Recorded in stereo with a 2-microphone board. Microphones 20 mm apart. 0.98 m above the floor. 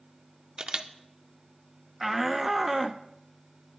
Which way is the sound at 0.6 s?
55° right (ahead or behind).